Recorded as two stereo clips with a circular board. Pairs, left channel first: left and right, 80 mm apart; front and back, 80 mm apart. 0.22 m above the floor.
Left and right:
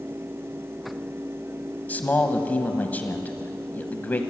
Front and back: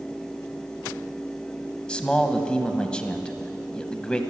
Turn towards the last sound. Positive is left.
turn(degrees=60)